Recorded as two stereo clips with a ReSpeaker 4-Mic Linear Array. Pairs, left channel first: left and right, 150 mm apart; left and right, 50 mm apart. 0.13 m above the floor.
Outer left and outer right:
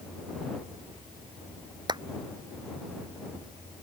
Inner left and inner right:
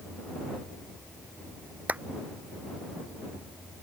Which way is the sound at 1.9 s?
30° right (ahead or behind).